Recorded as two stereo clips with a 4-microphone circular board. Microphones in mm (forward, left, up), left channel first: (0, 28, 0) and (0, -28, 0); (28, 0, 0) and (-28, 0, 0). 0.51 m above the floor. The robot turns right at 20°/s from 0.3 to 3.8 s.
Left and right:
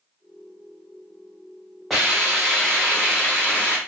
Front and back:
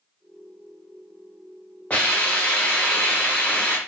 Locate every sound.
1.9 s a hiss: straight ahead, 1.1 m; by 3.8 s 35° left, 1.1 m